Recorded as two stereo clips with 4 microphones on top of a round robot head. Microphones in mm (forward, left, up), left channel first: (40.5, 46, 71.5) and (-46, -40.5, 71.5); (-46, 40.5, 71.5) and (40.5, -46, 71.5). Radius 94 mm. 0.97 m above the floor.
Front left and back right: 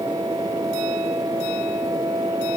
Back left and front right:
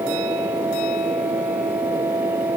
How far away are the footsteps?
I don't hear footsteps.